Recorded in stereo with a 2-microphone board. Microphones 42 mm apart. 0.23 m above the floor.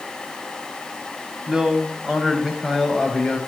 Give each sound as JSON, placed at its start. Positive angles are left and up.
{"t": 1.5, "sound": "a man speaking", "side_deg": -15, "distance_m": 1.6}